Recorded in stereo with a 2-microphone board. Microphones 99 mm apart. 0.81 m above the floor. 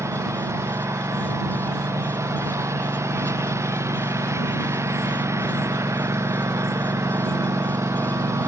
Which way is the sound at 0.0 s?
30° right (ahead or behind).